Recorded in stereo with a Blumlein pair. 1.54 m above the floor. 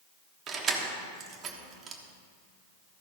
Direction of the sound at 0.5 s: 25° right.